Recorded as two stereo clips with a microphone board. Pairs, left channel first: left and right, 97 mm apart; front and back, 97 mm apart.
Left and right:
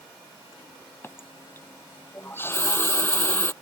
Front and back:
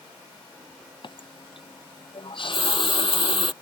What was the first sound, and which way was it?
A running tap, 25° left.